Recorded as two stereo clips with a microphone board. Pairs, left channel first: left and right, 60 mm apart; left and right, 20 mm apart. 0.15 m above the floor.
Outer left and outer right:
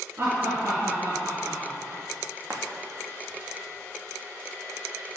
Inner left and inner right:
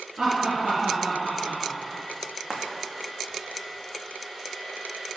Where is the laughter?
35° right (ahead or behind), 2 m.